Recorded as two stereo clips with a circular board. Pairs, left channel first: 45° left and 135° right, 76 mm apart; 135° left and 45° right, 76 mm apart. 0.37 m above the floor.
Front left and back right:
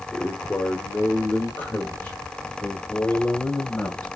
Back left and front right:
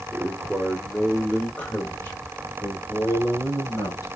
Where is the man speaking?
5° right, 1.3 m; by 4.1 s 110° left, 2.5 m.